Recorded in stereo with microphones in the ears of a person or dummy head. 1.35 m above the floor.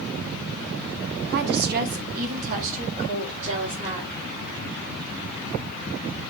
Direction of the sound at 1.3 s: 60° right (ahead or behind).